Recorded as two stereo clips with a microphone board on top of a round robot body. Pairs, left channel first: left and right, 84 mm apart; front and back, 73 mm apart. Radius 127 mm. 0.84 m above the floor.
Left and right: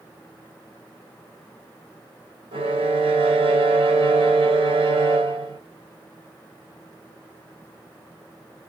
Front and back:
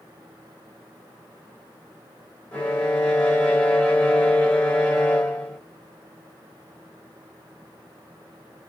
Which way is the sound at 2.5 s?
70° right.